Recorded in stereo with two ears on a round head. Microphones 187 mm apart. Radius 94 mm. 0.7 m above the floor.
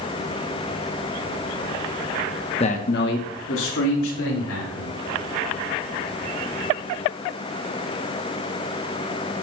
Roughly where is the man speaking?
Left.